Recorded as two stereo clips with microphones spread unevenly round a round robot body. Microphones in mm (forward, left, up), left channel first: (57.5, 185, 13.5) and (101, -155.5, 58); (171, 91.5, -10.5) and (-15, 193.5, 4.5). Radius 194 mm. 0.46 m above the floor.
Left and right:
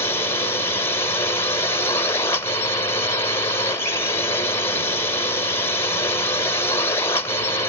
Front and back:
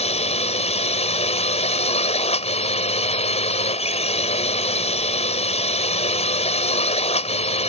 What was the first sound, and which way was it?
A drone, 20° left.